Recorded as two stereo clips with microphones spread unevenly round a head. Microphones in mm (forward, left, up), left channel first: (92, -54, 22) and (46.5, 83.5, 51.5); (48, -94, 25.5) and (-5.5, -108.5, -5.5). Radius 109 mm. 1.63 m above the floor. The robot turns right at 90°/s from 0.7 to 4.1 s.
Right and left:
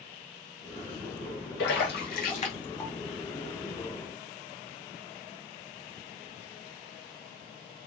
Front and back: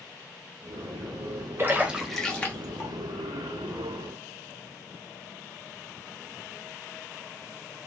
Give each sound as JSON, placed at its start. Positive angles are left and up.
{"t": 1.6, "sound": "a splash", "azimuth_deg": -105, "distance_m": 1.2}